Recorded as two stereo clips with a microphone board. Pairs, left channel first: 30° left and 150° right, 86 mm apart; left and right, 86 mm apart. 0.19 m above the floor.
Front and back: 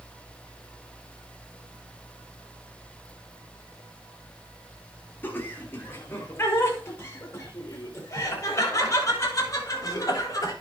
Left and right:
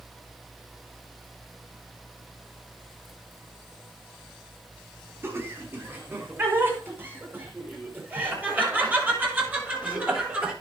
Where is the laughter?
35° right, 4 m; by 10.5 s 20° right, 6.5 m.